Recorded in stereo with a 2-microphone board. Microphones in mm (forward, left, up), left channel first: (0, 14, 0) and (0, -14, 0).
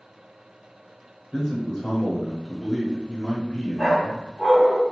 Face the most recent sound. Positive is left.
turn(degrees=-15)  # may be behind; listen again after turning